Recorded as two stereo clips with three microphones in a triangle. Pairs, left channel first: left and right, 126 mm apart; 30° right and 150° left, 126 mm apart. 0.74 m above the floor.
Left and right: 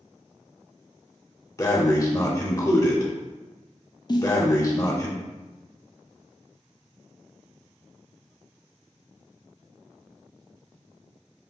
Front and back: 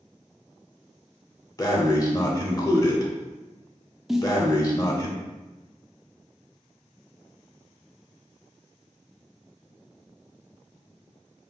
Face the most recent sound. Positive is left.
turn(degrees=65)